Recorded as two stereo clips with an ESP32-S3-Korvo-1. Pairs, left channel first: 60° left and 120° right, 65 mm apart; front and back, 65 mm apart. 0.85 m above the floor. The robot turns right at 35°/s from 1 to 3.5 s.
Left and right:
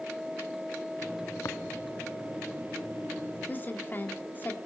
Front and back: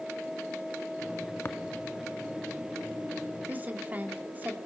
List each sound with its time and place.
1.4 s tapping: 45° left, 1.0 m; by 1.6 s 50° left, 1.0 m
3.5 s a woman speaking: 120° left, 2.5 m